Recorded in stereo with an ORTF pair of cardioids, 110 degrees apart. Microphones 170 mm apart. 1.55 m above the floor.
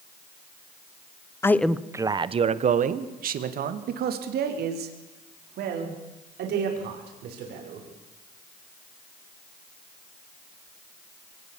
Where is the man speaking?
15° left, 1.1 m; by 7.8 s 80° right, 7 m.